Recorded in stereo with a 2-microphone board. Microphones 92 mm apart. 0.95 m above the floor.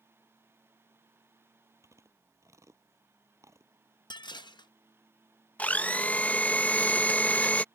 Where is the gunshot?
I don't hear a gunshot.